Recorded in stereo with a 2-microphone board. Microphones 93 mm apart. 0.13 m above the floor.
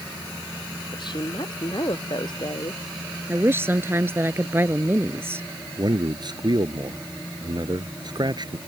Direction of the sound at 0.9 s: 55° left (ahead or behind).